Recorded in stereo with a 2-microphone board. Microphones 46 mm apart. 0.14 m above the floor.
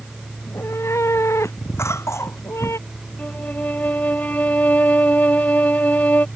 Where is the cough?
80° left.